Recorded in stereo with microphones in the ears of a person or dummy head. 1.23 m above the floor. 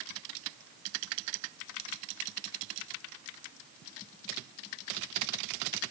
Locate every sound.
Only background noise.